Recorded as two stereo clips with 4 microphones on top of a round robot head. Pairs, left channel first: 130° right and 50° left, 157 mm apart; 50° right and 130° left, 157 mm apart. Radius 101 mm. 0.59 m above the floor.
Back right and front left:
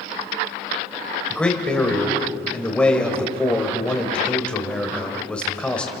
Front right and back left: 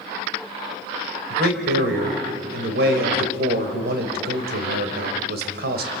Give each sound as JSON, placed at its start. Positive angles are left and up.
{"t": 1.3, "sound": "a man speaking", "azimuth_deg": 145, "distance_m": 3.0}